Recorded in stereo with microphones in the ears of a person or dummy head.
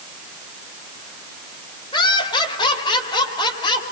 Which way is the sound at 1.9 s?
25° left (ahead or behind).